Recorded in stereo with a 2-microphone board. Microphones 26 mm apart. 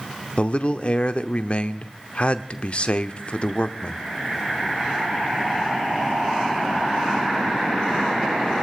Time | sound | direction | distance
0.4 | a man speaking | 45° left (ahead or behind) | 1.0 m